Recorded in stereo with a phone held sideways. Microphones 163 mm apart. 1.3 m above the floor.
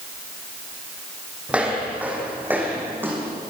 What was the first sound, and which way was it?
Footsteps, 5° right (ahead or behind).